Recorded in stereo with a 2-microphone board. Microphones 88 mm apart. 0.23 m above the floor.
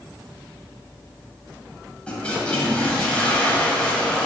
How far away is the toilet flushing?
About 0.8 m.